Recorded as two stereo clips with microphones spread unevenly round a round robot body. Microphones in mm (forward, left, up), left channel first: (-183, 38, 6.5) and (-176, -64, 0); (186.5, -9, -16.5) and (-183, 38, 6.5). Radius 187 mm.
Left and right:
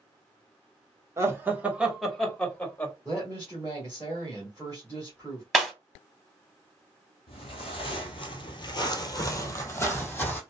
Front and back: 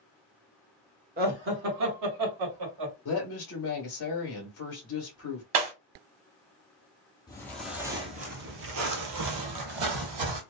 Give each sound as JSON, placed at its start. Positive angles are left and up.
{"t": 1.2, "sound": "laughter", "azimuth_deg": -125, "distance_m": 1.0}
{"t": 3.0, "sound": "a woman speaking", "azimuth_deg": 25, "distance_m": 1.2}
{"t": 5.5, "sound": "breaking glass", "azimuth_deg": -175, "distance_m": 1.6}
{"t": 7.3, "sound": "footsteps", "azimuth_deg": 75, "distance_m": 0.9}